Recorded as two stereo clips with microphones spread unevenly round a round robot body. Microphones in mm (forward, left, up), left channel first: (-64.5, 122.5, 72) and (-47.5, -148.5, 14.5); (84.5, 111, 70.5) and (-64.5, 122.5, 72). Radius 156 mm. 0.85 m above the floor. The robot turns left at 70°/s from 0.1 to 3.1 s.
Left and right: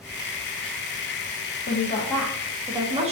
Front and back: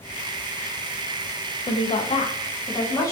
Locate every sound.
1.7 s a woman speaking: 40° left, 0.5 m; by 3.1 s 65° right, 0.5 m